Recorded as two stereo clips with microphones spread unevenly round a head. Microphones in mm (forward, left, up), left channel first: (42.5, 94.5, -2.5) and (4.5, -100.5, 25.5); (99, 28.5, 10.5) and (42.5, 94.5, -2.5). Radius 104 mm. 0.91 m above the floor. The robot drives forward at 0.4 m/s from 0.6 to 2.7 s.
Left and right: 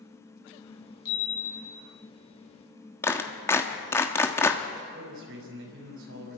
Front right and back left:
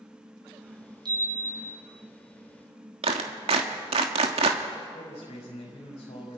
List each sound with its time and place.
1.1 s a chime: 95° left, 5.5 m
3.0 s a clap: 160° left, 1.2 m
4.9 s a man speaking: 70° right, 6 m